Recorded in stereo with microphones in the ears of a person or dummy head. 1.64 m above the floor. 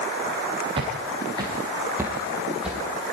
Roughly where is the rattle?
I don't hear a rattle.